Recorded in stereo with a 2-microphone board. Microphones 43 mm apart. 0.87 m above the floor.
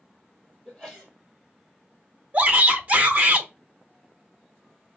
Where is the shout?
45° right (ahead or behind), 0.9 m.